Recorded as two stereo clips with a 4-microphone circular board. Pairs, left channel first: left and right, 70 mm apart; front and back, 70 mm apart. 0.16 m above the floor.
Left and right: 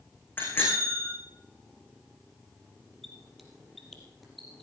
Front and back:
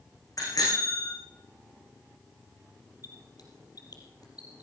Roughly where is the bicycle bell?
Ahead left.